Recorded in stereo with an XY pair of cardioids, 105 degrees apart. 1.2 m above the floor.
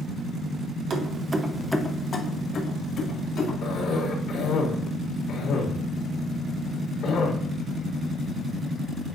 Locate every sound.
0.9 s keys jangling: 55° right, 1.1 m; by 3.5 s 65° left, 2.5 m
3.6 s a cough: 60° left, 3 m